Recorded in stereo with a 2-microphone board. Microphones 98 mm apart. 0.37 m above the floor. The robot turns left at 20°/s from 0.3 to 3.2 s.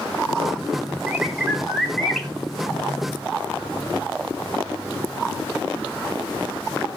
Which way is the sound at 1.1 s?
10° right (ahead or behind).